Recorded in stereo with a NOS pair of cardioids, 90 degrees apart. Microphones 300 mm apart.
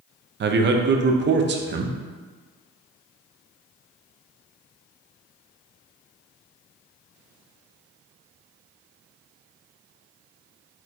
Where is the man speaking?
40° right, 0.5 m.